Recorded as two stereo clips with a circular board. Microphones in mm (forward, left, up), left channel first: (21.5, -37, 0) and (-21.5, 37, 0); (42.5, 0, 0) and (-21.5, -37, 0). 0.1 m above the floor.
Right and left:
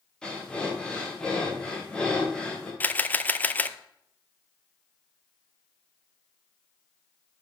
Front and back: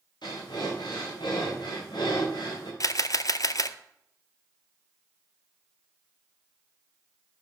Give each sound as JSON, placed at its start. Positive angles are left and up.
{"t": 0.2, "sound": "breathing", "azimuth_deg": 20, "distance_m": 5.5}
{"t": 2.8, "sound": "a camera shutter", "azimuth_deg": 5, "distance_m": 0.7}